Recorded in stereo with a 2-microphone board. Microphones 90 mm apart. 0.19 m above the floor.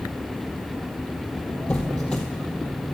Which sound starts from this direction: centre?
A squeak, at 1.7 s.